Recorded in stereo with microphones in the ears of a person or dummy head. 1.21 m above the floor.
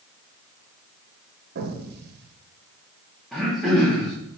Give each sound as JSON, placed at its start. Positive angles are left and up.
{"t": 1.6, "sound": "an explosion", "side_deg": -50, "distance_m": 0.7}
{"t": 3.3, "sound": "throat clearing", "side_deg": 0, "distance_m": 1.0}